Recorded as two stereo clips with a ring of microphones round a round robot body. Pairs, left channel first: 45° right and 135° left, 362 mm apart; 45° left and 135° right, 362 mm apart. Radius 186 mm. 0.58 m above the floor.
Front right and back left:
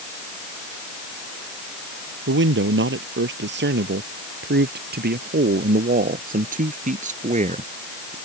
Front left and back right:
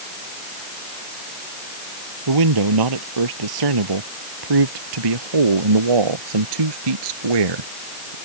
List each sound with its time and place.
2.3 s a man speaking: 165° right; by 8.2 s 150° right